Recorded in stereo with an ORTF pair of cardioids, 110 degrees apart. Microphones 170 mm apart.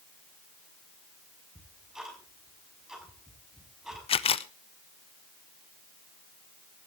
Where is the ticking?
5° right, 6 m.